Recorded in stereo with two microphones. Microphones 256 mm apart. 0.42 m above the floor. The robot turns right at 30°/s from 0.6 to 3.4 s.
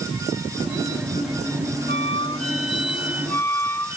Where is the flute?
135° right; by 4.0 s 90° right.